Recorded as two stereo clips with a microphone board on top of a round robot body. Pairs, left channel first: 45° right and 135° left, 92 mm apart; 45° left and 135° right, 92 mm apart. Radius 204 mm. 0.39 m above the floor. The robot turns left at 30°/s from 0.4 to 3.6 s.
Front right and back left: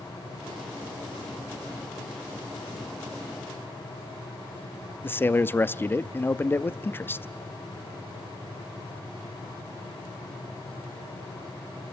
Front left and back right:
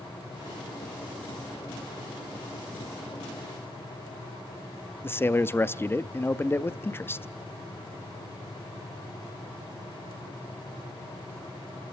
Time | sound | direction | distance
5.0 | a man speaking | straight ahead | 0.8 m